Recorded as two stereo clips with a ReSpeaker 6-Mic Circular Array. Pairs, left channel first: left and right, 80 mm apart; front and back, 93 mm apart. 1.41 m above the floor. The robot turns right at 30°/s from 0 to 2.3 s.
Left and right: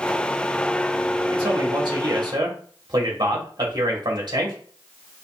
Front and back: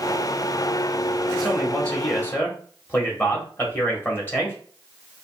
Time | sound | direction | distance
1.3 | a man speaking | 95° right | 1.6 m